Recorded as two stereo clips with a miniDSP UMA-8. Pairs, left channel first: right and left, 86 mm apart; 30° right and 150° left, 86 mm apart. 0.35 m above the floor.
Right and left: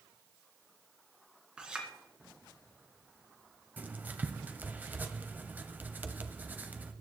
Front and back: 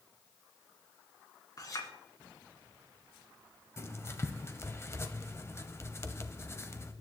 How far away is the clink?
About 2.5 m.